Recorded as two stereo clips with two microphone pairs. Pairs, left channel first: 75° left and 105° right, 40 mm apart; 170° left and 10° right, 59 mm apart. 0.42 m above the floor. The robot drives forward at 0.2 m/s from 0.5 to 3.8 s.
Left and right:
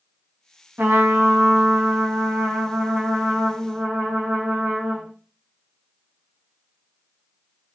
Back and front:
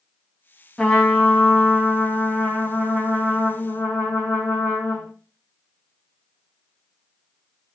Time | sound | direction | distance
0.8 | a trumpet | 115° right | 0.7 m